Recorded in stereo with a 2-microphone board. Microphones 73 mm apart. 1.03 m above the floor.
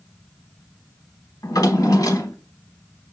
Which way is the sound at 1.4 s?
55° left (ahead or behind).